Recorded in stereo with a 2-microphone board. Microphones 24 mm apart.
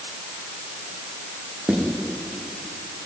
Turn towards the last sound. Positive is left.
turn(degrees=-85)